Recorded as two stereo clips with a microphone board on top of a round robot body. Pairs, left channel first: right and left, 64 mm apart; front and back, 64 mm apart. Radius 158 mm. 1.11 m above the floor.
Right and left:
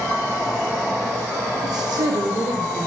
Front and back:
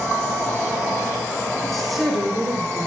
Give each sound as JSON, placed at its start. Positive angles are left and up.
{"t": 1.6, "sound": "a woman speaking", "azimuth_deg": 85, "distance_m": 1.3}